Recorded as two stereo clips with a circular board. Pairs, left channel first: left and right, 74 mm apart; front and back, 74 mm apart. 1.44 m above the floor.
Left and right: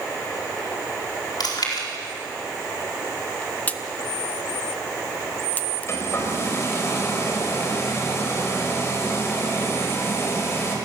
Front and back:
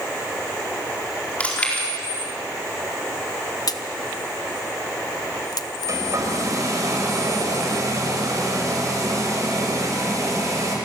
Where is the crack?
25° left, 1.0 m.